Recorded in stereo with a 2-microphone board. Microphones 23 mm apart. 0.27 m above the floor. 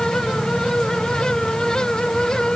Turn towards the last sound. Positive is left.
No sound to turn to.